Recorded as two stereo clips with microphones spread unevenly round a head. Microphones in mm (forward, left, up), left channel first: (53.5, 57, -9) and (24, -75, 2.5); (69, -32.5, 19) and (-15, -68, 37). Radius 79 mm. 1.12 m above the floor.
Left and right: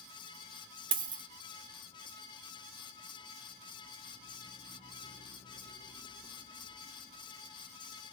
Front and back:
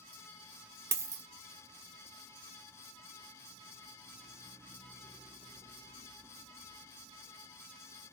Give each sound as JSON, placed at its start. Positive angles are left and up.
{"t": 0.9, "sound": "a dropped coin", "azimuth_deg": -135, "distance_m": 0.6}